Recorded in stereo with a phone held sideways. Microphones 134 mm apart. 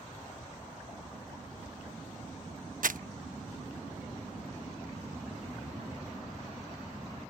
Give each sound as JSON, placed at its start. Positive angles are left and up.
{"t": 2.8, "sound": "crumpling", "side_deg": -85}